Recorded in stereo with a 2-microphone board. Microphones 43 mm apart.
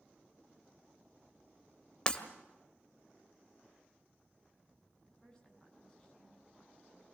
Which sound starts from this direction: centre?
A woman speaking, at 5.0 s.